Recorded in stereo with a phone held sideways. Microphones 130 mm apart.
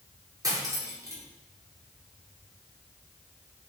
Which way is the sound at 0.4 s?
30° right (ahead or behind).